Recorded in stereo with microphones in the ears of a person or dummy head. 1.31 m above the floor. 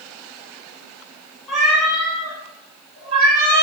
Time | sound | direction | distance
1.5 | a cat meowing | 10° left (ahead or behind) | 1.4 m